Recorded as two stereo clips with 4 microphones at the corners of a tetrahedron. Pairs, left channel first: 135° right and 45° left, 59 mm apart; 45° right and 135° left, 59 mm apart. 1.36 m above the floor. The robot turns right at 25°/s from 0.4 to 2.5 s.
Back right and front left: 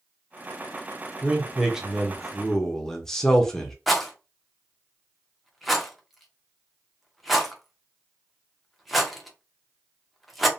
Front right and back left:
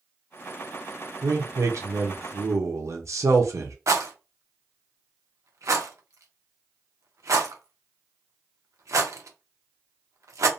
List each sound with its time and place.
1.2 s a man speaking: 110° left, 0.6 m; by 3.8 s 145° left, 0.6 m
3.9 s a rattle: 135° left, 0.5 m